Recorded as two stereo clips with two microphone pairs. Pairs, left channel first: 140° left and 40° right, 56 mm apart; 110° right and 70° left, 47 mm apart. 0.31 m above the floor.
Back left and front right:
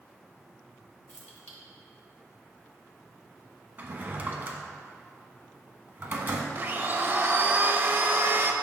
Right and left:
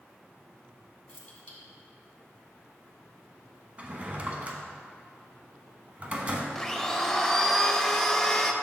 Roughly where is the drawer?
Ahead.